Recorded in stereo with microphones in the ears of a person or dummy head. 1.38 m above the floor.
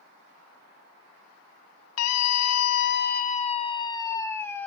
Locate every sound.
2.0 s a scream: 75° left (ahead or behind), 0.8 m; by 4.7 s 10° left (ahead or behind), 1.4 m